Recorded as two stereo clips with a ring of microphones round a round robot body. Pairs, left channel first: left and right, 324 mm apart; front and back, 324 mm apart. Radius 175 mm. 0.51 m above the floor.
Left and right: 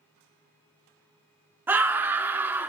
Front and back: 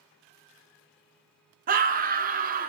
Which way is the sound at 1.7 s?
165° right.